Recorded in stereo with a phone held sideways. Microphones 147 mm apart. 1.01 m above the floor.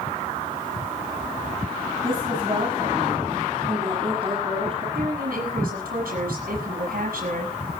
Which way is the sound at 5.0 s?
85° right.